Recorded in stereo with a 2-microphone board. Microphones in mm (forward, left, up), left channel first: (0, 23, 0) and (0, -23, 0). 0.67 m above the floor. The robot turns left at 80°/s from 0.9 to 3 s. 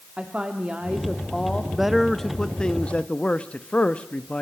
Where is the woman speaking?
155° right, 1.5 m; by 1.6 s 145° left, 1.5 m.